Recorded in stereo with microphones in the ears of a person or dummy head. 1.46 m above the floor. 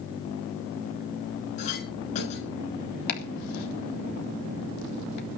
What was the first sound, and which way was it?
A clink, 45° left (ahead or behind).